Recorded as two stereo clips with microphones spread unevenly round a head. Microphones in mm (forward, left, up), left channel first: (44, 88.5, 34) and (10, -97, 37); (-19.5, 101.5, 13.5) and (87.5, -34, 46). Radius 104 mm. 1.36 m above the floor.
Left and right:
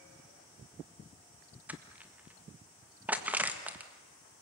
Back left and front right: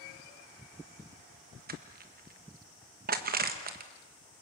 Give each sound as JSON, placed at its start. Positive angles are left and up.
{"t": 1.7, "sound": "crushing", "azimuth_deg": -20, "distance_m": 1.7}